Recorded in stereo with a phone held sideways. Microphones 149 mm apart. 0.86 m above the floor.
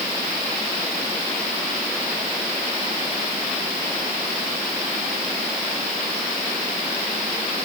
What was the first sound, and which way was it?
Only background noise.